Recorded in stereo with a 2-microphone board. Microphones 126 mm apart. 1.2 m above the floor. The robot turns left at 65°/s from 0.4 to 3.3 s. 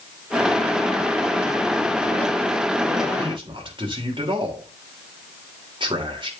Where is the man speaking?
50° right (ahead or behind), 3 m; by 6.3 s 45° right (ahead or behind), 3 m.